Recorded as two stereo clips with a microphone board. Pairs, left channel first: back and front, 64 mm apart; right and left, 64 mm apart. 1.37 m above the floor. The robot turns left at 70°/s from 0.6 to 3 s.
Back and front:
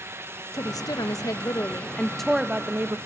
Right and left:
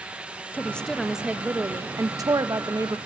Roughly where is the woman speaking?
Behind right.